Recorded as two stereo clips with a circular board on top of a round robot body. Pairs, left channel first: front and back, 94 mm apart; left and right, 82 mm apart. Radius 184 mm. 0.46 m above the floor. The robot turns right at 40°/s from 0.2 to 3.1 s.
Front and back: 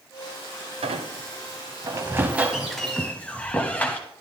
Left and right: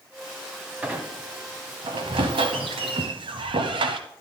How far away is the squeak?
About 0.6 m.